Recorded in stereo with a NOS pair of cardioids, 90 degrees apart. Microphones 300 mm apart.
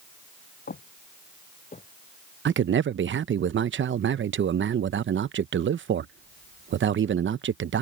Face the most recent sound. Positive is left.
turn(degrees=-40)